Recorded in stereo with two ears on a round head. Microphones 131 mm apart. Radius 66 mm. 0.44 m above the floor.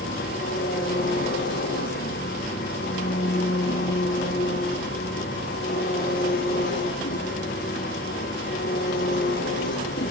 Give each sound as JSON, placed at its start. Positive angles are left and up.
{"t": 0.0, "sound": "an engine running", "side_deg": 65, "distance_m": 9.0}